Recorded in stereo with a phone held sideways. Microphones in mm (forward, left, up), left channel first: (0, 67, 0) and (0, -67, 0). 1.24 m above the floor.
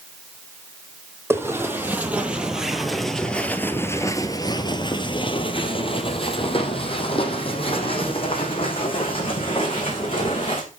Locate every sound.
1.3 s footsteps: 15° right (ahead or behind), 2.5 m; by 10.6 s 40° left (ahead or behind), 5 m